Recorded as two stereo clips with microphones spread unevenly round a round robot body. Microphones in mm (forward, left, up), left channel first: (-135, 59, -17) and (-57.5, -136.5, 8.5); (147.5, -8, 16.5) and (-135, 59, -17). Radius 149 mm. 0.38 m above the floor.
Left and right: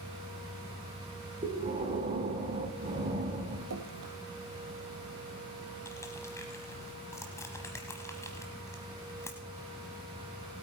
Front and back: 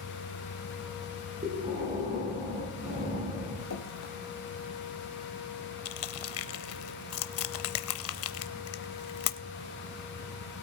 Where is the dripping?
55° right, 1.6 m.